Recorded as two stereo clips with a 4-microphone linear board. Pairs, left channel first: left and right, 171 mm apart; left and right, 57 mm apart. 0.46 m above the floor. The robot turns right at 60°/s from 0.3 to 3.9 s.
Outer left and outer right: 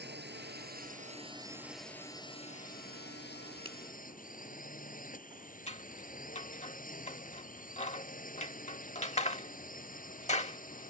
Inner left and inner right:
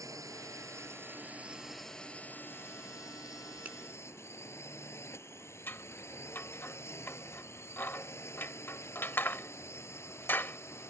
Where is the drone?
90° right; by 10.9 s 125° left.